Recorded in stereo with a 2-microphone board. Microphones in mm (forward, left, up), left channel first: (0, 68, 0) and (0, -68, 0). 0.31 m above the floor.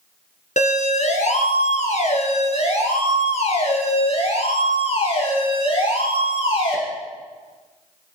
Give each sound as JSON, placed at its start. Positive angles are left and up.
{"t": 0.6, "sound": "a siren", "side_deg": 60, "distance_m": 3.0}